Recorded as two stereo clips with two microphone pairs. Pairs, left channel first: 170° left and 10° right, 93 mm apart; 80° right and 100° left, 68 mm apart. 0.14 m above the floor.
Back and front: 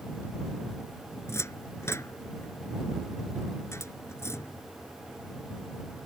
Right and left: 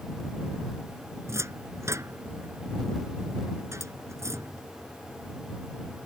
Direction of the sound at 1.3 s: 120° left.